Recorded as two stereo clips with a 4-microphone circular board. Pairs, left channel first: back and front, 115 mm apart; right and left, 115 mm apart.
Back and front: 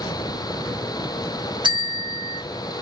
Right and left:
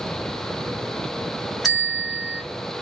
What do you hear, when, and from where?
1.6 s a bell: straight ahead, 1.5 m